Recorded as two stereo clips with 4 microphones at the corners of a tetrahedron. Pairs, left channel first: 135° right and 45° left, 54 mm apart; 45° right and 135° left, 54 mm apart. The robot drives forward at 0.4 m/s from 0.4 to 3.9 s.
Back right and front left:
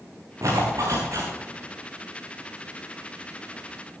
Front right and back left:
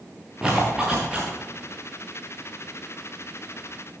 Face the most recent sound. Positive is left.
turn(degrees=70)